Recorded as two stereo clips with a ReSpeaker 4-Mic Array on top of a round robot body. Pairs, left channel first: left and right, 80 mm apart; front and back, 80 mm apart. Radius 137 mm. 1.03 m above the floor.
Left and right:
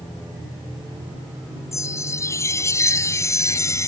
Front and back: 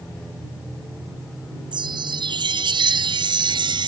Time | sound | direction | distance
1.7 | a chime | 150° left | ?